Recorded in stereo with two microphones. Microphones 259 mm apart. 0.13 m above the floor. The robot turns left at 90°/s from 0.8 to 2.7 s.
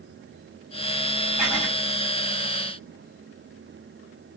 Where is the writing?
175° right, 2 m; by 1.7 s 155° left, 2 m.